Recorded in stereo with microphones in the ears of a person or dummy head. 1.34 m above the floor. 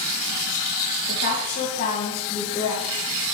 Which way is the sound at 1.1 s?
55° left (ahead or behind).